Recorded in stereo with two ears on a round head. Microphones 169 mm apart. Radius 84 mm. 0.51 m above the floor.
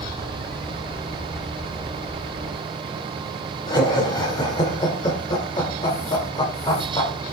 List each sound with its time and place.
3.7 s laughter: 25° left (ahead or behind), 1.8 m